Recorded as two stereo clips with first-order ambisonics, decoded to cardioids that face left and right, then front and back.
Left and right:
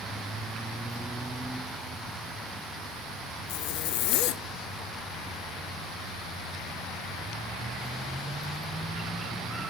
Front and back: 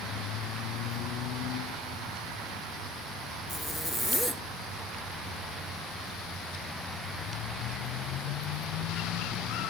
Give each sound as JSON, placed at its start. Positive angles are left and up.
{"t": 3.5, "sound": "a zipper", "azimuth_deg": 90, "distance_m": 0.6}